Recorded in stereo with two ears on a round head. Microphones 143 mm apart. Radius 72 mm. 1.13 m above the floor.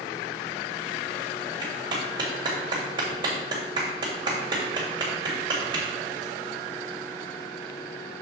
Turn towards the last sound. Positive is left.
turn(degrees=-30)  # may be behind; listen again after turning